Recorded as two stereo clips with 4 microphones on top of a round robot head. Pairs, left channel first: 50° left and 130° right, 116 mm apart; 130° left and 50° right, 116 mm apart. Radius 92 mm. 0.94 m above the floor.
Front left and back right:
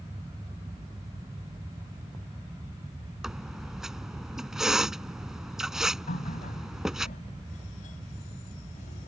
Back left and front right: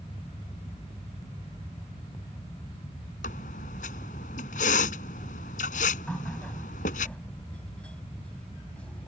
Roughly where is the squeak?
Behind left.